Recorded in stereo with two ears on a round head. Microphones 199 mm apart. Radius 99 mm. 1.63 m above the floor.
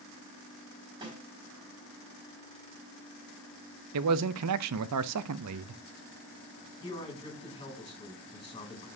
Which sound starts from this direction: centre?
A man speaking, at 6.8 s.